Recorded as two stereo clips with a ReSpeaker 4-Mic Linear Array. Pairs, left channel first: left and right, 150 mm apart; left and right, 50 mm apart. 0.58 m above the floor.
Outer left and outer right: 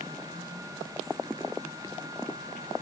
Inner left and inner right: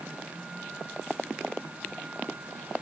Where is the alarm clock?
I don't hear an alarm clock.